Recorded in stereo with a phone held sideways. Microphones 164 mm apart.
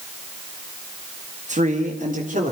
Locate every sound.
1.5 s a man speaking: 45° right (ahead or behind), 2.0 m; by 2.5 s 55° right (ahead or behind), 3.5 m